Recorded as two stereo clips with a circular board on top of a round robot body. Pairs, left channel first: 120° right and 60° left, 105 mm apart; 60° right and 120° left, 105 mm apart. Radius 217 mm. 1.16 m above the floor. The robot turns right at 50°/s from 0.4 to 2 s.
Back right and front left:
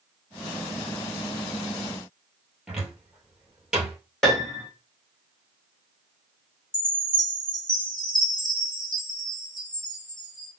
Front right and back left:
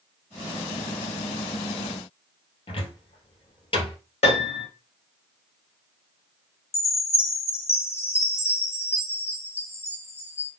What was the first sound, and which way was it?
A cupboard door, 30° right.